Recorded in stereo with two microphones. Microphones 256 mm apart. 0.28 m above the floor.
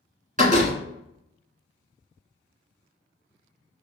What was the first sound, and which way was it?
A door slam, 30° right (ahead or behind).